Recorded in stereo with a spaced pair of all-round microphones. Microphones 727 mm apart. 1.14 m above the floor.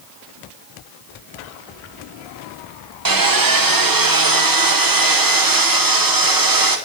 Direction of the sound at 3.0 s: 30° right (ahead or behind).